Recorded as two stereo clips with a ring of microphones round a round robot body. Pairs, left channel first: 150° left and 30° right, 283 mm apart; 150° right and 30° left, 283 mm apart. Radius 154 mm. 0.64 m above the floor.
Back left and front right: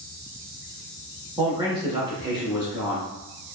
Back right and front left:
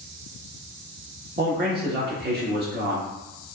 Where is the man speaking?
35° left, 1.2 m.